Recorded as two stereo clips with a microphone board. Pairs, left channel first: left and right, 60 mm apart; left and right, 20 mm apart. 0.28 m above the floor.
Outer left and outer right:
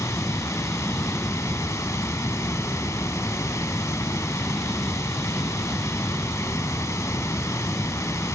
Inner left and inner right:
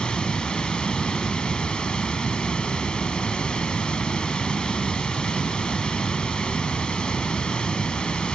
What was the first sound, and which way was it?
Running water, 65° left (ahead or behind).